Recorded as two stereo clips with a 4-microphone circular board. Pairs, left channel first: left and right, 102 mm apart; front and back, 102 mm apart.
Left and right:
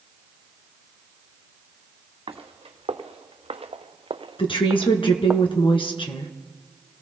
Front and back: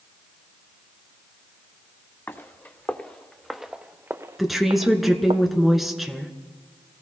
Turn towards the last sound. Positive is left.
turn(degrees=90)